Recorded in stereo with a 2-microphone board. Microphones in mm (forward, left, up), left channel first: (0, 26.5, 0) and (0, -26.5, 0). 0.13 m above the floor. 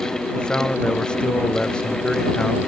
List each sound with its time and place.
0.3 s a man speaking: 15° left (ahead or behind)